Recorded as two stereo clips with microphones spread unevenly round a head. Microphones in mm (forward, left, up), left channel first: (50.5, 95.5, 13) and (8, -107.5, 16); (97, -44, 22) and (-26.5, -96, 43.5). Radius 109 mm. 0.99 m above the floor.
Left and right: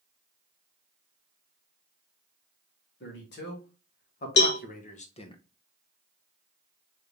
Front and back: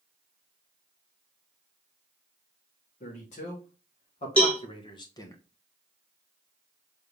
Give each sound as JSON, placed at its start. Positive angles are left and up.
{"t": 3.0, "sound": "a man speaking", "azimuth_deg": 50, "distance_m": 2.5}
{"t": 4.4, "sound": "a cowbell", "azimuth_deg": 95, "distance_m": 0.9}